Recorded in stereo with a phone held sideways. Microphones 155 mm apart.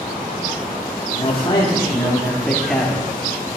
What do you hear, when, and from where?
1.1 s a man speaking: 40° left (ahead or behind), 1.7 m; by 3.0 s centre (ahead or behind), 2.0 m